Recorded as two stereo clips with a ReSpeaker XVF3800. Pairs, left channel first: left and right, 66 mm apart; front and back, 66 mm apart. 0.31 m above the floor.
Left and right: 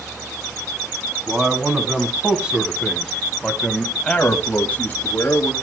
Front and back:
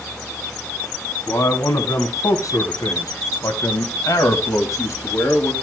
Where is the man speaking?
30° right, 2.5 m; by 5.5 s 40° left, 1.8 m.